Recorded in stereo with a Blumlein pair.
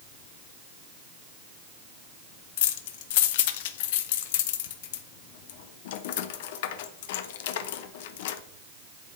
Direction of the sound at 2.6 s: 50° left.